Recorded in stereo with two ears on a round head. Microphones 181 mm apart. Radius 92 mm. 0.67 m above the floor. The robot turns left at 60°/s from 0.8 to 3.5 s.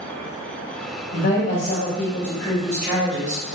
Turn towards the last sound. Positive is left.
turn(degrees=-50)